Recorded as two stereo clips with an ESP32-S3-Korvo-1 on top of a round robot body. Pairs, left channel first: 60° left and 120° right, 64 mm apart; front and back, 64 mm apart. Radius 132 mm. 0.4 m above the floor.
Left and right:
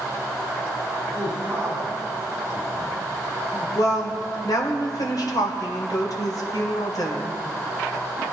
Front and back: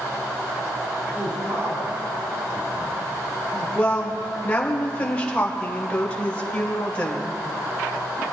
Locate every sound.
1.1 s a man speaking: 170° right, 4 m
3.8 s a woman speaking: 70° left, 2.5 m